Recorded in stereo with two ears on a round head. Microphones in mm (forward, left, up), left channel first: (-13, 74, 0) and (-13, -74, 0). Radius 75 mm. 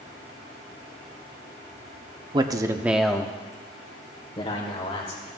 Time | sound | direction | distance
2.3 | a man speaking | 25° right (ahead or behind) | 0.8 m